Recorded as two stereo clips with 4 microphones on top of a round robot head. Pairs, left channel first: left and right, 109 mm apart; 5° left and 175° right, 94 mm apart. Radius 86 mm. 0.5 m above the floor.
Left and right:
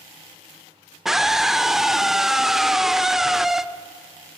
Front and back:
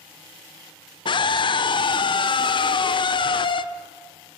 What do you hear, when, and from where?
1.1 s a scream: 5° right, 1.4 m